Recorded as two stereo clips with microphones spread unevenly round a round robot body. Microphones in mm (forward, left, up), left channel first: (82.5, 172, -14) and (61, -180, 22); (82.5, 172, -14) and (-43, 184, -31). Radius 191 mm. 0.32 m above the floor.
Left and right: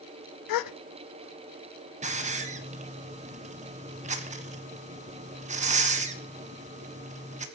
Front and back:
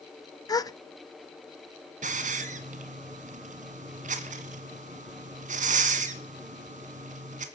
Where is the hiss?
170° right, 1.2 m.